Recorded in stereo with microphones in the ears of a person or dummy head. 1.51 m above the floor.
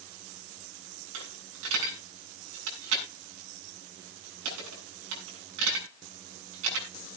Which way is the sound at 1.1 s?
80° right.